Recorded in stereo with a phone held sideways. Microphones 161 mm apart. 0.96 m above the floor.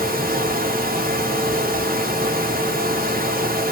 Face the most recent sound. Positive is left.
turn(degrees=-75)  # may be behind; listen again after turning